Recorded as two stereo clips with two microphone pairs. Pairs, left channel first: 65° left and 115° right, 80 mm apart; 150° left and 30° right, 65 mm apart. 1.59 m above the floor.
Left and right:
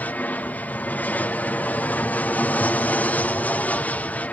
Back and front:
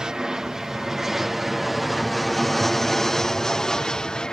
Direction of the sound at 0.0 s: 35° left.